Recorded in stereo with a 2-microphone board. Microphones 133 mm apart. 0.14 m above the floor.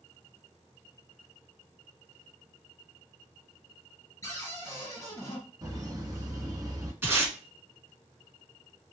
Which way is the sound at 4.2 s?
25° left (ahead or behind).